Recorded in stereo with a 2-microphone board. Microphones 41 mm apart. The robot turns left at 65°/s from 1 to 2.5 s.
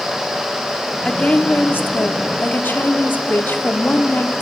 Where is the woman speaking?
160° left, 1.5 m; by 4.4 s 65° left, 1.5 m.